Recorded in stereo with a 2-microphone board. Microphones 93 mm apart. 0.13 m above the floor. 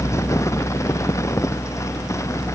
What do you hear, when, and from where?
Only background noise.